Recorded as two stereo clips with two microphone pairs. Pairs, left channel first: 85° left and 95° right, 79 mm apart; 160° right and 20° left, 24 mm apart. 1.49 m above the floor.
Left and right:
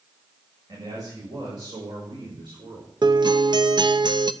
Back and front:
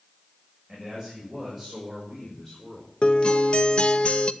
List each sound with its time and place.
0.7 s a man speaking: 65° right, 7 m; by 2.9 s 80° right, 4.5 m
3.0 s a guitar: 115° right, 0.7 m